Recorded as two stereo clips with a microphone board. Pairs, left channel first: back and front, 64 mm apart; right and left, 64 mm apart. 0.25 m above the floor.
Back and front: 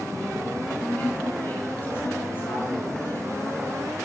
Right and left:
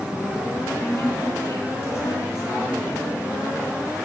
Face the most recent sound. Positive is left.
turn(degrees=-130)